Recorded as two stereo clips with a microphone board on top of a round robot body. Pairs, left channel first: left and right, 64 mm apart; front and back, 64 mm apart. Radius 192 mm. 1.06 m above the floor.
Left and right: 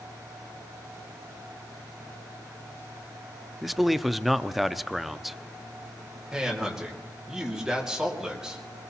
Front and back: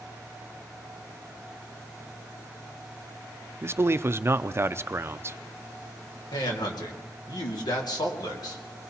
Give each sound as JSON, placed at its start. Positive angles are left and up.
{"t": 3.6, "sound": "a man speaking", "azimuth_deg": -175, "distance_m": 0.7}
{"t": 6.3, "sound": "a man speaking", "azimuth_deg": -10, "distance_m": 2.0}